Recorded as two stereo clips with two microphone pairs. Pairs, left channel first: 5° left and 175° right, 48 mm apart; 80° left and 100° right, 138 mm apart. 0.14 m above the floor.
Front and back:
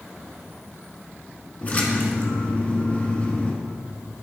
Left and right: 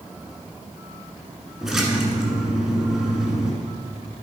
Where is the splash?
15° right, 1.5 m.